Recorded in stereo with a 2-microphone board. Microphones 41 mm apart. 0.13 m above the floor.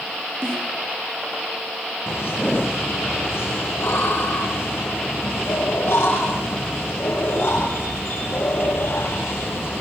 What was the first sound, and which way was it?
A snare drum, 70° right (ahead or behind).